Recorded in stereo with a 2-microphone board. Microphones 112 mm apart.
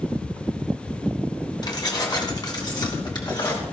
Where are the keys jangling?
40° left (ahead or behind), 2.0 m.